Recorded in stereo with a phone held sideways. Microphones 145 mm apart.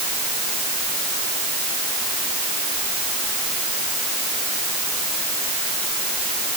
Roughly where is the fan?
No fan in this recording.